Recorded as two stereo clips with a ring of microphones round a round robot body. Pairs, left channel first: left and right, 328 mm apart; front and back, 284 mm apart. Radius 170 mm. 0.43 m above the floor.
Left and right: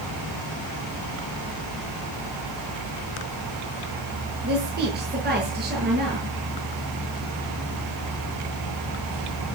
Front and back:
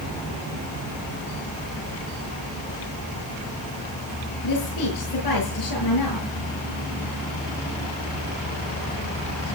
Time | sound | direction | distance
4.4 | a woman speaking | 30° right | 9.5 m